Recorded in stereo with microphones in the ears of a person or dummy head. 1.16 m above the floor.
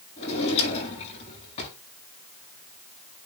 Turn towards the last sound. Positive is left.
turn(degrees=40)  # may be behind; listen again after turning